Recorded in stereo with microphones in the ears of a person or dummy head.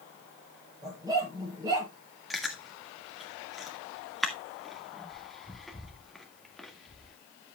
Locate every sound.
0.8 s a dog barking: 20° right (ahead or behind), 7.5 m
2.3 s chewing: centre (ahead or behind), 1.9 m